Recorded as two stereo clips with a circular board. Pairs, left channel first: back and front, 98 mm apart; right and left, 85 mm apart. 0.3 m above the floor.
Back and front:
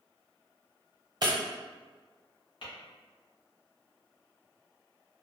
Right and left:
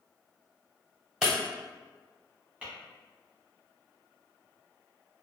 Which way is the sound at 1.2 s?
10° left.